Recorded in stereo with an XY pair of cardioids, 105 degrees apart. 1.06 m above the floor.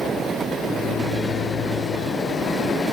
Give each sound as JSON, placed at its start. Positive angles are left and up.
{"t": 0.7, "sound": "a microwave", "azimuth_deg": 50, "distance_m": 4.0}